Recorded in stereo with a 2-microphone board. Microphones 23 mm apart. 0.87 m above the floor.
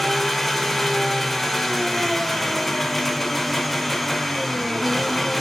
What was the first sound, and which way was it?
An engine running, 5° left (ahead or behind).